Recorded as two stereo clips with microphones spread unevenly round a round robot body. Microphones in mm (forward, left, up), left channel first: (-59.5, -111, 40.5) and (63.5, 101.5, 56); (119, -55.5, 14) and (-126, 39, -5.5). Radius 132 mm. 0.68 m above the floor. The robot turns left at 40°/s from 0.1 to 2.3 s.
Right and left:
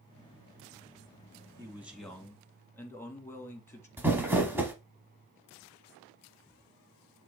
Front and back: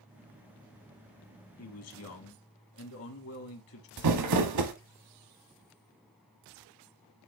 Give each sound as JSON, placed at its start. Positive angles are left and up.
{"t": 1.6, "sound": "a man speaking", "azimuth_deg": -15, "distance_m": 1.8}
{"t": 4.0, "sound": "crumpling", "azimuth_deg": 140, "distance_m": 1.0}